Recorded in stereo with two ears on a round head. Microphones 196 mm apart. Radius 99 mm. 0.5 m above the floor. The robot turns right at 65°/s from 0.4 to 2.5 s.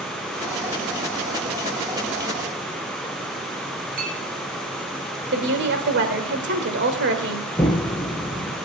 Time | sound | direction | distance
4.0 | a clink | 45° right (ahead or behind) | 3 m
5.3 | a woman speaking | 55° right (ahead or behind) | 2.0 m
7.6 | an explosion | 10° left (ahead or behind) | 1.8 m